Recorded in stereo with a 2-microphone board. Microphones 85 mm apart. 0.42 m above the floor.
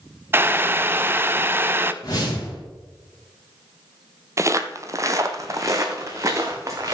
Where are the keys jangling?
No keys jangling in this recording.